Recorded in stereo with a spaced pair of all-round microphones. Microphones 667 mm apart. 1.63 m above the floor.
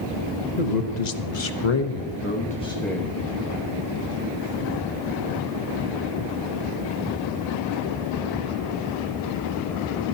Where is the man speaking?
75° left (ahead or behind), 1.3 m; by 3.2 s 5° right (ahead or behind), 2.0 m.